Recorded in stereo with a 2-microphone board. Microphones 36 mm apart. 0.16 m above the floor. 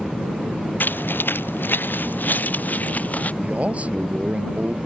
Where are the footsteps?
65° left (ahead or behind); by 3.3 s 45° left (ahead or behind).